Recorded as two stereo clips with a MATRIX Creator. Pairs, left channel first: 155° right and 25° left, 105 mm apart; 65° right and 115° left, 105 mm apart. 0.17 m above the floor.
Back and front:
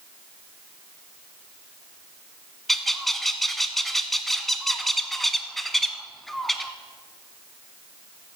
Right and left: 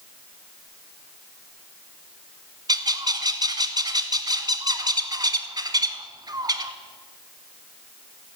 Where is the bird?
115° left, 0.7 m.